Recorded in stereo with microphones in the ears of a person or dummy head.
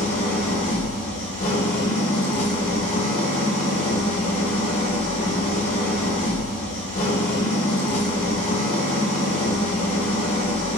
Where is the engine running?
25° left (ahead or behind), 0.9 m.